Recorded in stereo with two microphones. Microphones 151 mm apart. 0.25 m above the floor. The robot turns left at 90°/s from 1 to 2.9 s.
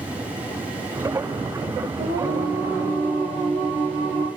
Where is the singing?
110° right, 5.5 m; by 4.3 s 170° left, 5.5 m.